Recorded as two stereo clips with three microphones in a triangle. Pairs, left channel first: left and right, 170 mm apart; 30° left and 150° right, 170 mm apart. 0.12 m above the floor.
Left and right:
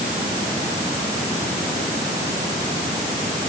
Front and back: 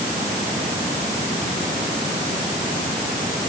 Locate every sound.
Only background noise.